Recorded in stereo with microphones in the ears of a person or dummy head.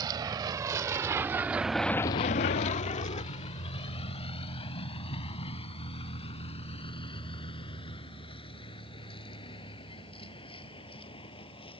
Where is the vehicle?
20° right (ahead or behind); by 11.8 s 30° left (ahead or behind).